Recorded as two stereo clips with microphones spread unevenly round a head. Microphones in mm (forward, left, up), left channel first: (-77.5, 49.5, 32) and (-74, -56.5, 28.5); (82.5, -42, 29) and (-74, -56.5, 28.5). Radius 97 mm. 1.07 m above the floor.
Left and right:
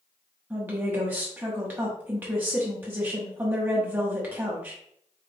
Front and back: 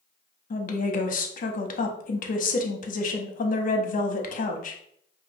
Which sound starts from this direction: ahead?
A woman speaking, at 0.5 s.